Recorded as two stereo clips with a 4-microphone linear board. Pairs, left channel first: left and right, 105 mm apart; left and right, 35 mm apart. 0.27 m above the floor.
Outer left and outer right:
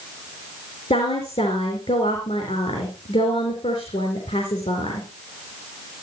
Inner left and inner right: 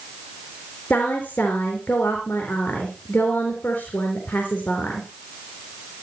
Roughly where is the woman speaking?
Left.